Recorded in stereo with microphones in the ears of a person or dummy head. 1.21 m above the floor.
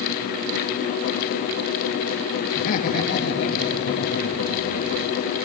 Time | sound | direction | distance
2.5 | laughter | 45° left (ahead or behind) | 2 m